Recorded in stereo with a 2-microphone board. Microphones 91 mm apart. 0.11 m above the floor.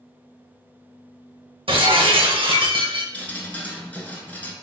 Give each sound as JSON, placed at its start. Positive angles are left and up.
{"t": 1.7, "sound": "breaking glass", "side_deg": -80, "distance_m": 1.0}
{"t": 3.1, "sound": "dripping", "side_deg": 20, "distance_m": 0.9}